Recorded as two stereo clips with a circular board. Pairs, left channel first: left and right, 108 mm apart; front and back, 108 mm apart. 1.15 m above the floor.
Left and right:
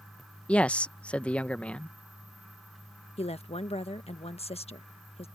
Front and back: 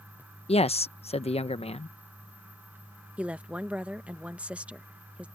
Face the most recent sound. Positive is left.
turn(degrees=100)